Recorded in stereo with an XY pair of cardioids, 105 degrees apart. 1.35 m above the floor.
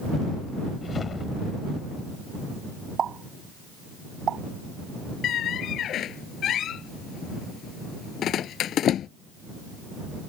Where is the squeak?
65° left.